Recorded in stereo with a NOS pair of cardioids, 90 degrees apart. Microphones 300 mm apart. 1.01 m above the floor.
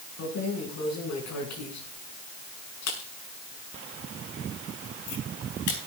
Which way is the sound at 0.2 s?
60° left.